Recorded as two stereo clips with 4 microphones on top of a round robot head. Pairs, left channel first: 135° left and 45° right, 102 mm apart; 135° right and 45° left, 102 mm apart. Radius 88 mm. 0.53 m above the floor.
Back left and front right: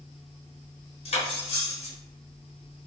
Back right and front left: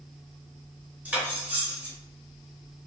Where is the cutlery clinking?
120° left, 1.0 m.